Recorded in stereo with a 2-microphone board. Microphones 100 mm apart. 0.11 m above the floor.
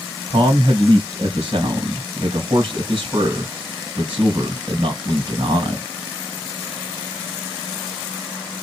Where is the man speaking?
55° right (ahead or behind), 3 m.